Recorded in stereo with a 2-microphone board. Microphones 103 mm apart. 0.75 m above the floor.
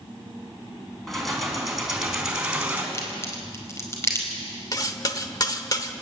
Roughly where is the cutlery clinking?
Left.